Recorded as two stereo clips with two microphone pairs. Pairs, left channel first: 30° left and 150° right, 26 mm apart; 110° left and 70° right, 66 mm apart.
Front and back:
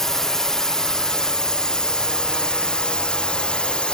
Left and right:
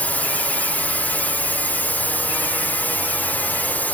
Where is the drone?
80° left; by 3.9 s 60° left.